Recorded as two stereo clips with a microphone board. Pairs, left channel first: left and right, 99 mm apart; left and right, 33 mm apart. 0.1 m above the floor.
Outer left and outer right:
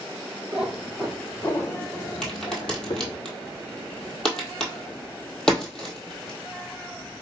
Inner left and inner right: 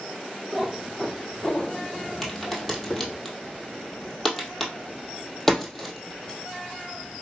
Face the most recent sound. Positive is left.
turn(degrees=5)  # may be behind; listen again after turning